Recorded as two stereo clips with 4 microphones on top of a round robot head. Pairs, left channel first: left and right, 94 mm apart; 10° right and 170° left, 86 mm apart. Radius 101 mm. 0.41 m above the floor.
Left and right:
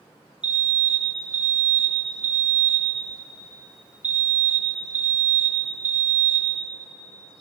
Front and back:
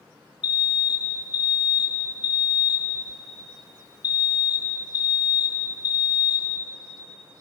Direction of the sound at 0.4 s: 20° right.